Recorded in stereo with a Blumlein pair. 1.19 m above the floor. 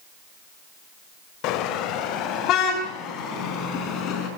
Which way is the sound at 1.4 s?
40° left.